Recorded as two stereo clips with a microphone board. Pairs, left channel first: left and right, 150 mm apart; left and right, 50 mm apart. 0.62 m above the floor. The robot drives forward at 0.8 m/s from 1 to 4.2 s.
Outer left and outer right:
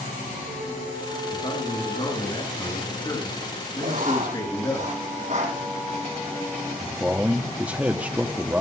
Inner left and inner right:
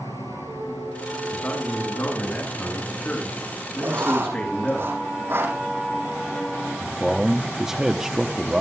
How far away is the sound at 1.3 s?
About 9 m.